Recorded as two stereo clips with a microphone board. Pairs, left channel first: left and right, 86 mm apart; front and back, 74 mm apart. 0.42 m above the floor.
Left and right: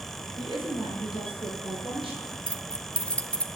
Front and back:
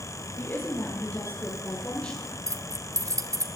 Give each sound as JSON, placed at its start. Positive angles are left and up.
{"t": 0.4, "sound": "a woman speaking", "azimuth_deg": -60, "distance_m": 5.5}
{"t": 2.5, "sound": "keys jangling", "azimuth_deg": 165, "distance_m": 1.0}